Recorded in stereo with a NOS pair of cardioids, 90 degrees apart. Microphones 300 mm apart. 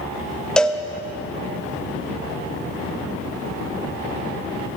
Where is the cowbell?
5° left, 0.6 m.